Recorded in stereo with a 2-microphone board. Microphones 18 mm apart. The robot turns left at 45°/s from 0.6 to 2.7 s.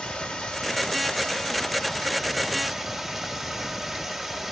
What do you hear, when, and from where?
0.0 s running water: 90° left, 1.3 m; by 4.5 s 5° right, 1.3 m